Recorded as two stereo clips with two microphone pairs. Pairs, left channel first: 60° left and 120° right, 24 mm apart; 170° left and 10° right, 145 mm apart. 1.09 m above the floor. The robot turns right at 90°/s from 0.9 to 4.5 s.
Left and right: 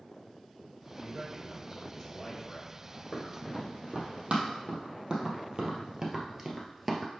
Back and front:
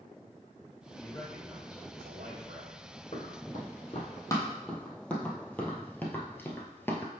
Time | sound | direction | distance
1.0 | a man speaking | 120° right | 3.5 m
3.1 | running footsteps | 130° left | 2 m